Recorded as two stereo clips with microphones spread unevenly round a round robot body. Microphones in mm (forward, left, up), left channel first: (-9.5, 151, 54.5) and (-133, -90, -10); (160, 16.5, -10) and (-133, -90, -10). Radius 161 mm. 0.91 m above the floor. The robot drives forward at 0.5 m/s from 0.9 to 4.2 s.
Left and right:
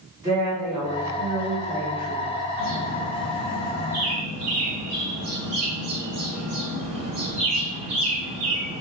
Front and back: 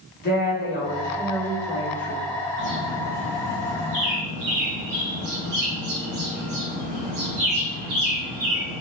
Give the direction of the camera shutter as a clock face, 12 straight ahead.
No camera shutter in this recording.